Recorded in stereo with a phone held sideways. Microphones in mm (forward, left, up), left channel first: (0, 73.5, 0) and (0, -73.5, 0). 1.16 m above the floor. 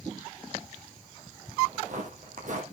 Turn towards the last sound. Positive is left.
turn(degrees=-55)  # may be behind; listen again after turning